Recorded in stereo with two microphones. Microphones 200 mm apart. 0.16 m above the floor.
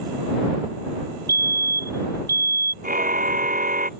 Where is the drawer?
No drawer in this recording.